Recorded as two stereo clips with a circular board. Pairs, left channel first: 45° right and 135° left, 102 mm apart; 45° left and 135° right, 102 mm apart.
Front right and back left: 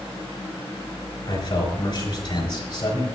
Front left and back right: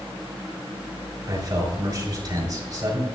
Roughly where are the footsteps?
No footsteps in this recording.